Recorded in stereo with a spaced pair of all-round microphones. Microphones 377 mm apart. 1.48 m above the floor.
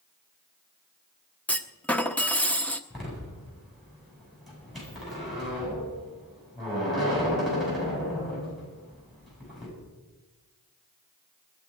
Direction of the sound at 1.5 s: 5° left (ahead or behind).